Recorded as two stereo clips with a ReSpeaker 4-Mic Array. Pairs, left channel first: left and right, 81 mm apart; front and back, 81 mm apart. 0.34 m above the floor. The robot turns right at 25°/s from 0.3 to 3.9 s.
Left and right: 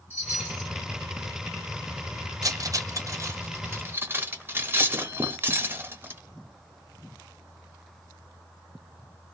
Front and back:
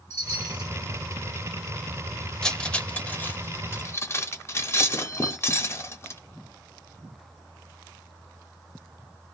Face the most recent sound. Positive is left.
turn(degrees=-40)